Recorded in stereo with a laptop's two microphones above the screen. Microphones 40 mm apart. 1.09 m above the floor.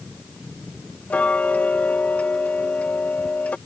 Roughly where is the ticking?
Left.